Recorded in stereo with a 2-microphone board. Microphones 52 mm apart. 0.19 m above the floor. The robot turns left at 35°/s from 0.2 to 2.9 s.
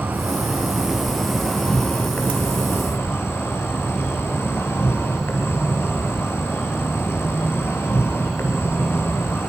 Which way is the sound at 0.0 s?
145° right.